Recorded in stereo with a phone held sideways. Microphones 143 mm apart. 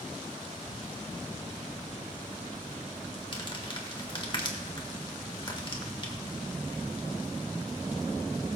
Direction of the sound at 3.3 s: 35° left (ahead or behind).